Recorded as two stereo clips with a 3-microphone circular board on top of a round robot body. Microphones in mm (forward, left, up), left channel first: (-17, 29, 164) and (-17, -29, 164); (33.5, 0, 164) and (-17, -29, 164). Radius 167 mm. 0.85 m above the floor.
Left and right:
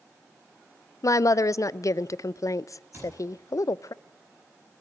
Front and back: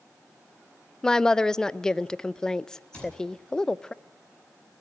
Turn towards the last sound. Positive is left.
turn(degrees=-35)